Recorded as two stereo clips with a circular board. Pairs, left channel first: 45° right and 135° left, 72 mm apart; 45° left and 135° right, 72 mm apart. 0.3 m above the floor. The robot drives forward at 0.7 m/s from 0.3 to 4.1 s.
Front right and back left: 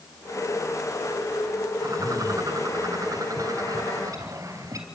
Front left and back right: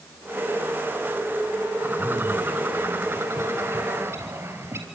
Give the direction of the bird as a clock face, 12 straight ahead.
6 o'clock.